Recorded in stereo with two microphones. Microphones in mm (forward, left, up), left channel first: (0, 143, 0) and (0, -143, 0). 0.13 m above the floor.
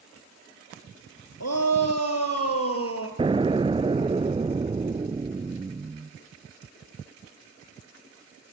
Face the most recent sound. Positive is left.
turn(degrees=-20)  # may be behind; listen again after turning